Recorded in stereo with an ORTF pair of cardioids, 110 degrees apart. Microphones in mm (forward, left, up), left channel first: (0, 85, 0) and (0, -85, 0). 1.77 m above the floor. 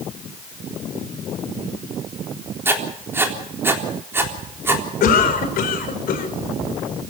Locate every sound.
2.6 s writing: 15° right, 3.5 m
5.0 s a cough: 65° left, 5.5 m